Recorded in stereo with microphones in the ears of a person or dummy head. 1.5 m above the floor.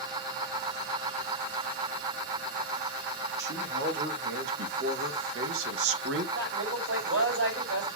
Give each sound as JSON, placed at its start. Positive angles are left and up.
{"t": 3.4, "sound": "a man speaking", "side_deg": -65, "distance_m": 2.5}
{"t": 6.3, "sound": "a man speaking", "side_deg": -85, "distance_m": 6.0}